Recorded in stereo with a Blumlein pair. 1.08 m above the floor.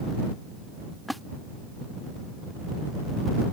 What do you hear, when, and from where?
1.1 s a splash: straight ahead